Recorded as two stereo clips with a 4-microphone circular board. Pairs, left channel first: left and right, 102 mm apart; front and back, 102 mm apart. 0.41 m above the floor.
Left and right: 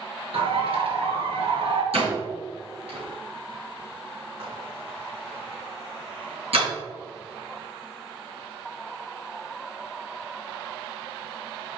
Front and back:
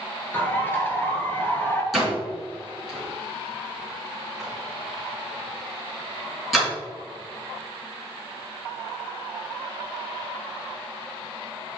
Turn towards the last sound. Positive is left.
turn(degrees=-90)